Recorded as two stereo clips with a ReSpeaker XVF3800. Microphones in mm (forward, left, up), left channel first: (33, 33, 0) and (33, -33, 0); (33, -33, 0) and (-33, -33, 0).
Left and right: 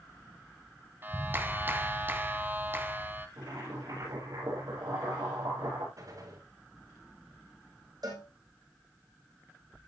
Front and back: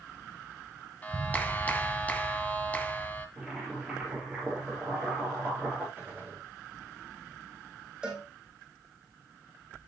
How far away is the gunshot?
About 7 m.